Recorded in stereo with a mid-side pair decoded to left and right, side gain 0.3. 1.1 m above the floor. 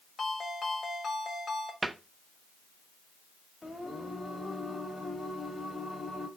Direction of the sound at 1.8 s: 35° right.